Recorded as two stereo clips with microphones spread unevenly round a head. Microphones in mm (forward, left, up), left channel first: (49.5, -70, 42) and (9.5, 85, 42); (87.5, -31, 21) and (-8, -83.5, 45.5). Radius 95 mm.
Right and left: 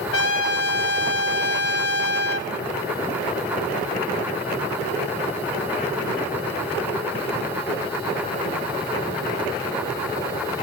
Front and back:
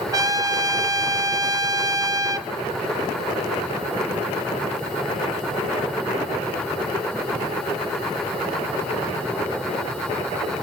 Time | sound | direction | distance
0.1 | a trumpet | 95° right | 0.7 m